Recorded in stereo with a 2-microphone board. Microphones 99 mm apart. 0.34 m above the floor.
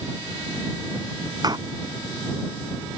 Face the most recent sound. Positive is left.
turn(degrees=-40)  # may be behind; listen again after turning